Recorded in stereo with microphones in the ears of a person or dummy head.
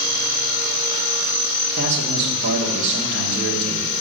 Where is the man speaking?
65° right (ahead or behind), 1.5 m.